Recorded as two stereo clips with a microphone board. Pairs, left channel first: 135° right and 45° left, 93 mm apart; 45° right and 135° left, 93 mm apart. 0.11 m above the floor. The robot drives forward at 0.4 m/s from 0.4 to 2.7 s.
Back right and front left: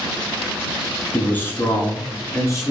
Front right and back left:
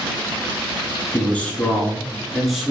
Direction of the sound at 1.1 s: 90° right.